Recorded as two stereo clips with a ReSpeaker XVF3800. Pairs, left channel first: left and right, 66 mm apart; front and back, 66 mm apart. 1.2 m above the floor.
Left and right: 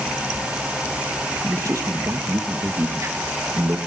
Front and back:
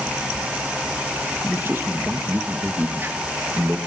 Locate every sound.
1.4 s a man speaking: 125° right, 1.8 m